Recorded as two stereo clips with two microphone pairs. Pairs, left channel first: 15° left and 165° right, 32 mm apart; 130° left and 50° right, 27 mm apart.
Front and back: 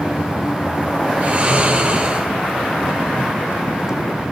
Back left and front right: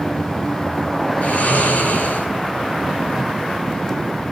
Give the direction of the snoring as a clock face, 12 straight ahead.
7 o'clock.